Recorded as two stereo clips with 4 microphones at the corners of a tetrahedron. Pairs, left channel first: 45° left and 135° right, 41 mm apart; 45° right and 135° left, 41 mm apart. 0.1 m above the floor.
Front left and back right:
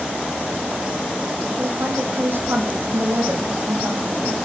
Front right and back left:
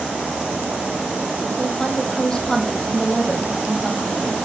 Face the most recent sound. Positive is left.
turn(degrees=-120)